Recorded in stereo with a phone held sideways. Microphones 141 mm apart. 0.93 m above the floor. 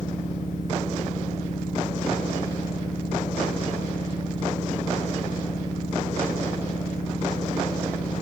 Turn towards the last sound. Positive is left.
turn(degrees=70)  # may be behind; listen again after turning